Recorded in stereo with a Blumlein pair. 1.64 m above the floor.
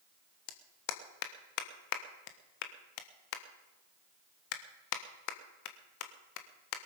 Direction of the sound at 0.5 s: 45° left.